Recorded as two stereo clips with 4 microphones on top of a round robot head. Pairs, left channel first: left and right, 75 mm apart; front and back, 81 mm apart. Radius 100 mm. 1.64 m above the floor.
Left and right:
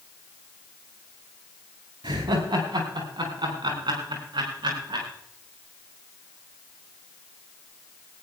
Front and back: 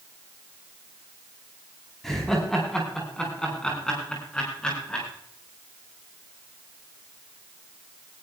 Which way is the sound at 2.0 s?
90° right.